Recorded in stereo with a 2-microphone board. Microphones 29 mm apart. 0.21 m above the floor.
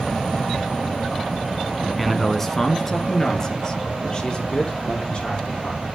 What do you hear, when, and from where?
2.0 s a man speaking: centre (ahead or behind), 1.6 m; by 5.8 s 30° left (ahead or behind), 7 m